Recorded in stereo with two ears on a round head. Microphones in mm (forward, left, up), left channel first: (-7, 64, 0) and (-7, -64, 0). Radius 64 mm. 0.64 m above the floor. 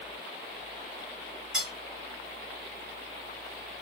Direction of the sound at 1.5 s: 5° right (ahead or behind).